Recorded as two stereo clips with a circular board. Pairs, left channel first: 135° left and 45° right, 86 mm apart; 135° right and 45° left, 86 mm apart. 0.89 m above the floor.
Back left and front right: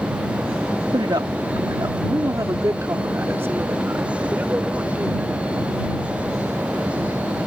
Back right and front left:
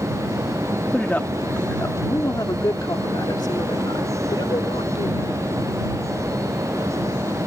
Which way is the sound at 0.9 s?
60° right.